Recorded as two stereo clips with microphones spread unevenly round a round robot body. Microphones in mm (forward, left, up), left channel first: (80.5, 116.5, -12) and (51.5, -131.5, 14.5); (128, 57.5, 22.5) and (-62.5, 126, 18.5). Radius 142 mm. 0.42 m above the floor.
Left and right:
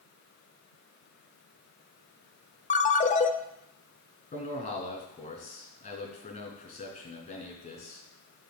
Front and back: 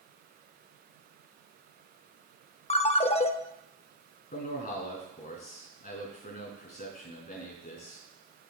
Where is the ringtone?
35° left, 0.7 m.